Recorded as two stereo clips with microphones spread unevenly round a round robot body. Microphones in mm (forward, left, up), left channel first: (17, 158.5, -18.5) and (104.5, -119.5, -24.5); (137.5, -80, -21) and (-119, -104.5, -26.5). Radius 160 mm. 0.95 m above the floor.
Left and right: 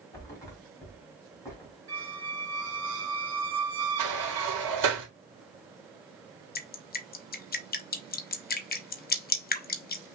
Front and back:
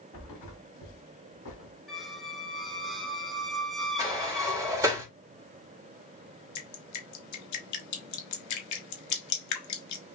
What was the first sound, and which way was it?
A thud, 30° left.